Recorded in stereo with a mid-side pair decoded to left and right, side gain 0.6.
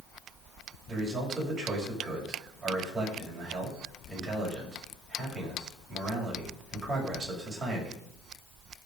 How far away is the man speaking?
About 8 m.